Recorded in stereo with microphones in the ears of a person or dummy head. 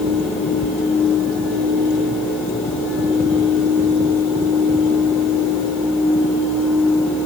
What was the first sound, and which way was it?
Only background noise.